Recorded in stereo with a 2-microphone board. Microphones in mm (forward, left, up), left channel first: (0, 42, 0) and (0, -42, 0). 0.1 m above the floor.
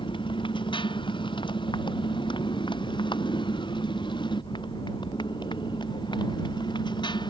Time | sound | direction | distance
0.0 | a motorcycle | 80° left | ?